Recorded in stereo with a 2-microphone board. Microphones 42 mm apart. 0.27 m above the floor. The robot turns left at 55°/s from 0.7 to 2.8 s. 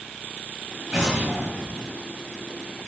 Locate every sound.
0.9 s an explosion: 25° right, 1.2 m; by 2.0 s 80° right, 1.2 m